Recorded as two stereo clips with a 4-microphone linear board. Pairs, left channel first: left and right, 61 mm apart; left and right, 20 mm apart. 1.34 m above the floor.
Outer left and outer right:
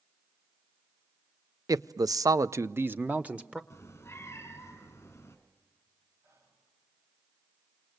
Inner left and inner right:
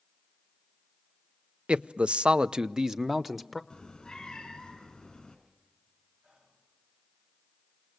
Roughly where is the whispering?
Right.